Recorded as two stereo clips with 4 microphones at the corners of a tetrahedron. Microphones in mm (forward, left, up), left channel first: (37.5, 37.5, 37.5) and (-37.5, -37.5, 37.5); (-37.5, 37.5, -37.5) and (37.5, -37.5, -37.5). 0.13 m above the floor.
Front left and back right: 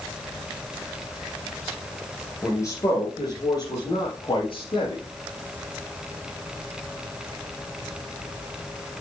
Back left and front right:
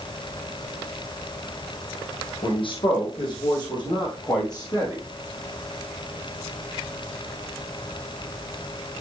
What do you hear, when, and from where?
2.4 s a man speaking: 110° left, 3.5 m; by 5.0 s 85° left, 5.5 m